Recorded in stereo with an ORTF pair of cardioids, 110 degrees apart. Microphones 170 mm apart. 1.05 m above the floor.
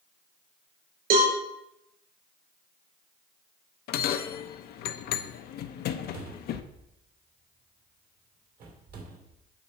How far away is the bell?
About 0.6 m.